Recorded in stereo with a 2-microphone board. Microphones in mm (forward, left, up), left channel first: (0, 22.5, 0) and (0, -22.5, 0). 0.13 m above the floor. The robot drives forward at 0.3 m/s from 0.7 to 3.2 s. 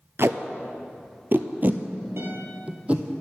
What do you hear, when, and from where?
0.2 s tape being pulled: 60° right (ahead or behind), 0.5 m; by 3.0 s 30° right (ahead or behind), 1.0 m
2.2 s a guitar: 60° right (ahead or behind), 3 m